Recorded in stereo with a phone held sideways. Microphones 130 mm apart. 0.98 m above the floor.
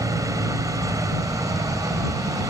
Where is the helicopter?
25° right (ahead or behind).